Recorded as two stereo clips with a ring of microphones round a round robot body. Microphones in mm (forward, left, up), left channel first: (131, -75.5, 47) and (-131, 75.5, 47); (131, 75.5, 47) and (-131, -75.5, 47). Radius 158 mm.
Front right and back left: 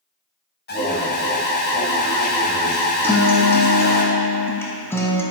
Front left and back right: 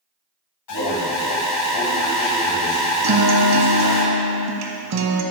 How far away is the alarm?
About 1.5 m.